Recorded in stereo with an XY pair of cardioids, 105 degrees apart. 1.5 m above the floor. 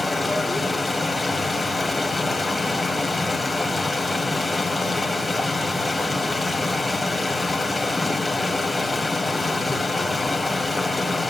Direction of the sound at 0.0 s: 10° left.